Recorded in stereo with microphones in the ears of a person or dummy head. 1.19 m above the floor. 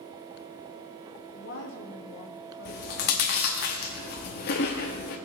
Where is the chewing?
40° left (ahead or behind), 0.9 m.